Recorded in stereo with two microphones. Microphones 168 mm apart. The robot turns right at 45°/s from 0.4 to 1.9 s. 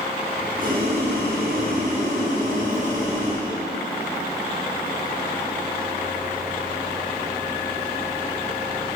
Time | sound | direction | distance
0.6 | boiling | 115° right | 4 m